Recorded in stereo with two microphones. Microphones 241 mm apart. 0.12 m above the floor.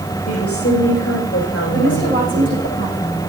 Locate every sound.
0.3 s a woman speaking: 70° left (ahead or behind), 5 m
1.7 s a woman speaking: 50° left (ahead or behind), 8.5 m